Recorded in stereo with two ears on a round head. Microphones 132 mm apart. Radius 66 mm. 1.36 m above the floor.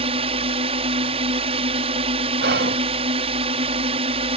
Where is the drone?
40° right (ahead or behind).